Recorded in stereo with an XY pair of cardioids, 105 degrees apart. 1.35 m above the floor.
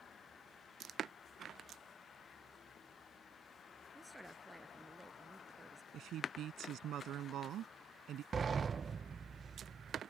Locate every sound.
4.0 s a woman speaking: straight ahead; by 5.8 s 10° right
5.9 s a woman speaking: 65° right
8.3 s a sliding door: 35° right